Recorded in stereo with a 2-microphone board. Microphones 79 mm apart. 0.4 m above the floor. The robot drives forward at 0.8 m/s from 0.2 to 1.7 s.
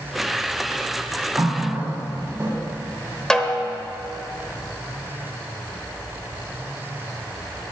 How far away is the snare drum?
About 0.8 m.